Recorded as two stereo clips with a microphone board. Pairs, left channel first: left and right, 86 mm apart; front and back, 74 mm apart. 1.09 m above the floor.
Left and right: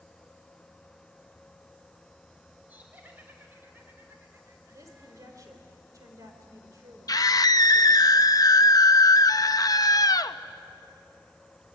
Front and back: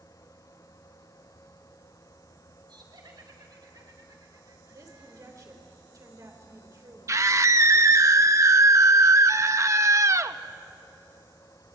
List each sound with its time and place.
2.7 s laughter: 160° right, 5.5 m; by 5.4 s 135° right, 3 m
4.7 s a woman speaking: 140° right, 5 m
7.1 s a scream: 135° left, 0.8 m